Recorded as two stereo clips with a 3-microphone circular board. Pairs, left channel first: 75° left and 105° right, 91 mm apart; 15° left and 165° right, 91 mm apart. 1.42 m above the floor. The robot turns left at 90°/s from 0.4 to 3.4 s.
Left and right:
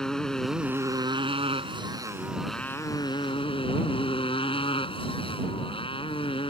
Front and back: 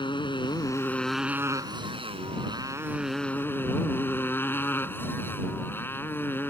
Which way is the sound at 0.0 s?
10° right.